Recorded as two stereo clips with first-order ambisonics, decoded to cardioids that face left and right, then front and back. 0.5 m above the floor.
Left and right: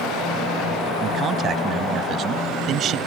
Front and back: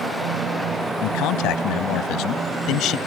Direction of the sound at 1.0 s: 30° right.